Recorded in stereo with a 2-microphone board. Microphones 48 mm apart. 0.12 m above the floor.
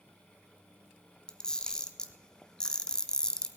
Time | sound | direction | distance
1.3 | a camera shutter | 15° left (ahead or behind) | 0.9 m